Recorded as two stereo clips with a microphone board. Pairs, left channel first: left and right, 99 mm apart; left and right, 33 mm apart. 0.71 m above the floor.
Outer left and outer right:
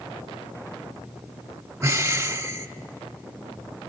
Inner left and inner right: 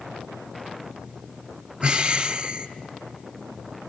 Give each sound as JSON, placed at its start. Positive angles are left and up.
{"t": 1.8, "sound": "breathing", "side_deg": -25, "distance_m": 1.7}